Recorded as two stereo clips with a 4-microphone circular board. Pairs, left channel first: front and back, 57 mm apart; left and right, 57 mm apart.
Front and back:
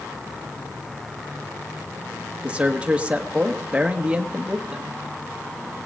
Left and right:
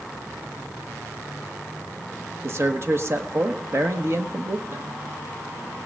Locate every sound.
2.4 s a man speaking: 110° right, 1.3 m